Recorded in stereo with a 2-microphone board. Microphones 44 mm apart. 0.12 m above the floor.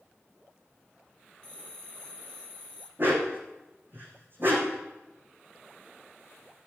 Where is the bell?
20° left (ahead or behind), 1.2 m.